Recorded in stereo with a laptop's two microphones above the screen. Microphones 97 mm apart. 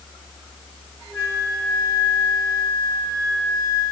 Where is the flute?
25° left (ahead or behind), 6 m.